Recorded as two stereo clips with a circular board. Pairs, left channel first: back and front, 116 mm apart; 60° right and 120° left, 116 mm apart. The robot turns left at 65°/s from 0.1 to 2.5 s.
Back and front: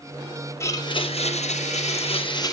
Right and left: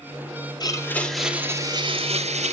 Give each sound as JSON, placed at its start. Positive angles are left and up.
{"t": 0.6, "sound": "a blender", "azimuth_deg": -115, "distance_m": 2.5}